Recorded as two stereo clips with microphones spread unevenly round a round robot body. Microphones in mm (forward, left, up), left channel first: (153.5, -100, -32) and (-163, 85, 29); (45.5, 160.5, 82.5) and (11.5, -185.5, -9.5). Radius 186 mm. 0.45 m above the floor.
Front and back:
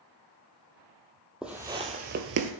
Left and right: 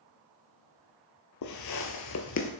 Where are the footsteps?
65° left, 0.8 m; by 2.5 s 125° left, 0.6 m.